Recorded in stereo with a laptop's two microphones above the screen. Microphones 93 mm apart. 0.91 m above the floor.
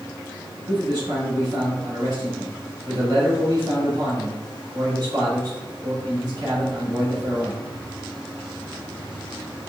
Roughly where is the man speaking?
Right.